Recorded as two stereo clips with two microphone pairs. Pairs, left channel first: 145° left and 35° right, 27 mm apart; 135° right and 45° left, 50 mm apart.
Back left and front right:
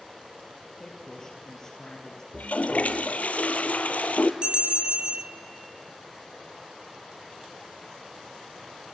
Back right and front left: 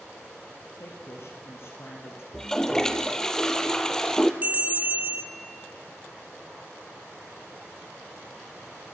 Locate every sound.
0.8 s a woman speaking: 155° right, 3.5 m
2.3 s a toilet flushing: 150° left, 1.2 m
4.4 s a bell: 5° right, 1.4 m